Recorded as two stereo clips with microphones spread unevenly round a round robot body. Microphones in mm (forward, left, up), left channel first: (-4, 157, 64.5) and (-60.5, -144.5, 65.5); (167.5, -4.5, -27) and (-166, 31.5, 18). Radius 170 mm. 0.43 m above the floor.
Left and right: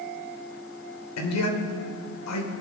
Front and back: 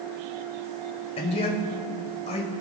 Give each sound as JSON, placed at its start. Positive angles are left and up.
{"t": 1.2, "sound": "a man speaking", "azimuth_deg": 60, "distance_m": 1.7}